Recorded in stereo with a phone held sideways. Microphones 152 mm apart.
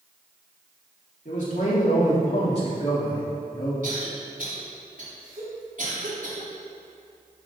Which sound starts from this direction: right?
A cough, at 3.8 s.